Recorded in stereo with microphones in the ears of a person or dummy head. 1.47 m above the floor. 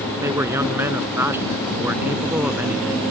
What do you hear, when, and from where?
0.2 s a man speaking: 15° right (ahead or behind); by 3.0 s 5° right (ahead or behind)